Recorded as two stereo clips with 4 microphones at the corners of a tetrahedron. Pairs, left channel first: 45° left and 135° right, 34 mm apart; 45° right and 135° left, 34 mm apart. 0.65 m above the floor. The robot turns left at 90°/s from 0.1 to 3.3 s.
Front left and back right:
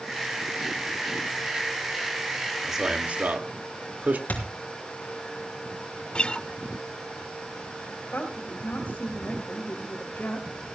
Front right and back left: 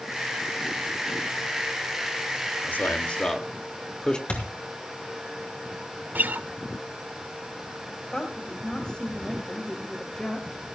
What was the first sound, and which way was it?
A man speaking, 50° right.